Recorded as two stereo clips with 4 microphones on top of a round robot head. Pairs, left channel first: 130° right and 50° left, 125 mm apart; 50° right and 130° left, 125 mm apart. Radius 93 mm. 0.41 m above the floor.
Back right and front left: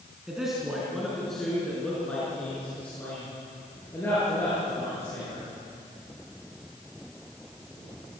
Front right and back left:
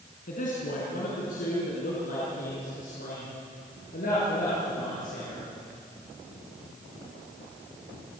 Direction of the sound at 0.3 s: 35° right.